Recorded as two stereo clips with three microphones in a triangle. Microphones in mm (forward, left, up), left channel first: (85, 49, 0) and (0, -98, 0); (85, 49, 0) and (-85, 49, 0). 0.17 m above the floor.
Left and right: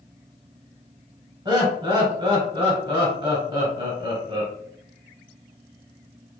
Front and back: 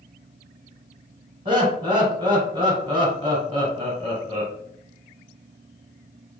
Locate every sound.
1.4 s laughter: 145° right, 1.2 m